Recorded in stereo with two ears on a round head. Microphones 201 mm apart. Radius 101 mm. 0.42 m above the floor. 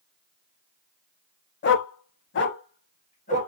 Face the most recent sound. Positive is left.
turn(degrees=35)  # may be behind; listen again after turning